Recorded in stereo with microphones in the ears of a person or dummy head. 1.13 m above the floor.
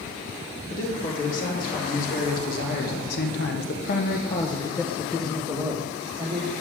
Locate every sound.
0.7 s a man speaking: 45° left (ahead or behind), 3 m; by 6.5 s 20° right (ahead or behind), 2 m